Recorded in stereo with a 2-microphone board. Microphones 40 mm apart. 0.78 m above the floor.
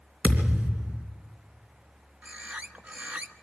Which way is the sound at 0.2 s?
35° right (ahead or behind).